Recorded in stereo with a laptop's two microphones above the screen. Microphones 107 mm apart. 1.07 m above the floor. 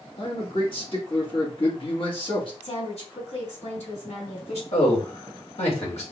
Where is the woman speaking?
80° left, 3 m.